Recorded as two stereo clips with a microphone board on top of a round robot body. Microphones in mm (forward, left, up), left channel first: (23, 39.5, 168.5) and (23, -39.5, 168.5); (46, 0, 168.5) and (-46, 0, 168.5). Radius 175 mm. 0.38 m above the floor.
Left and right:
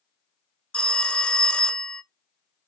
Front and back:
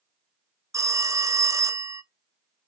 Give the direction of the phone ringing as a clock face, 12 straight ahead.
7 o'clock.